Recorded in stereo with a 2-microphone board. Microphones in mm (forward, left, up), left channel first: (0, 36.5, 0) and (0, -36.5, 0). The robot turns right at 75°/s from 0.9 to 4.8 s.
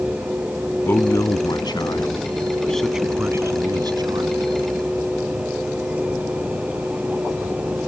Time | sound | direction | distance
0.8 | a man speaking | 35° left (ahead or behind) | ?